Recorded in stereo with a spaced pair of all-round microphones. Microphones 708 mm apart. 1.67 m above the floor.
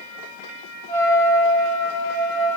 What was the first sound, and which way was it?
A trumpet, 5° left (ahead or behind).